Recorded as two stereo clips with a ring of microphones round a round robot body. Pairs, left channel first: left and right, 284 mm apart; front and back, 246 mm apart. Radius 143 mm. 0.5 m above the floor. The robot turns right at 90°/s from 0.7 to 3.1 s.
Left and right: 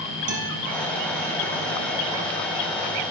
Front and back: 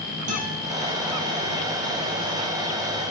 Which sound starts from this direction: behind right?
A guitar, at 0.3 s.